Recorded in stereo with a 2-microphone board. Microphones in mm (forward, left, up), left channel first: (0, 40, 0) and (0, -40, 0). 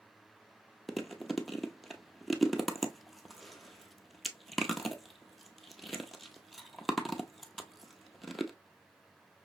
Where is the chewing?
Centre (ahead or behind), 0.6 m.